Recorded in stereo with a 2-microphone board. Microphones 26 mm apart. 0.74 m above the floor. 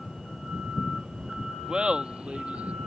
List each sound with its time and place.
1.7 s laughter: 30° right (ahead or behind); by 2.8 s 60° right (ahead or behind)